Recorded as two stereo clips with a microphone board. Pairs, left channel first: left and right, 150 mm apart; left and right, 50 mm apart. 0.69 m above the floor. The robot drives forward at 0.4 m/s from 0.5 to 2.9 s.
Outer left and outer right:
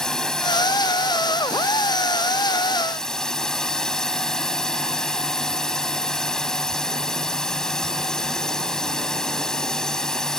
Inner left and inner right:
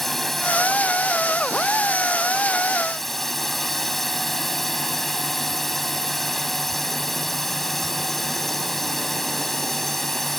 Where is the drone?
5° left (ahead or behind).